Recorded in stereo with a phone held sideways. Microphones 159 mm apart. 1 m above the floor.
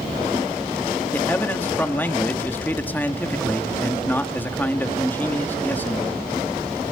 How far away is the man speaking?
About 1.8 m.